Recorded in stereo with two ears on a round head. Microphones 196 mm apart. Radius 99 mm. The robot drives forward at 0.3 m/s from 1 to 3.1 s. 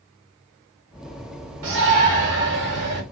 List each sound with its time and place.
1.6 s a shout: 65° right (ahead or behind), 2.0 m; by 3.0 s 55° right (ahead or behind), 2 m